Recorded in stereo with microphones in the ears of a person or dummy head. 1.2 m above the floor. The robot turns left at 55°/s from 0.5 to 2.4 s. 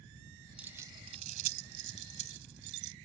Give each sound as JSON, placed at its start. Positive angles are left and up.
{"t": 0.6, "sound": "keys jangling", "side_deg": -5}